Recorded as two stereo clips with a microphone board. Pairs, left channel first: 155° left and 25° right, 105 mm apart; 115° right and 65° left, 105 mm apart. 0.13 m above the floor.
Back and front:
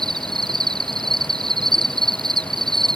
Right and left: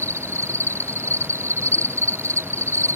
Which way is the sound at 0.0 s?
10° left.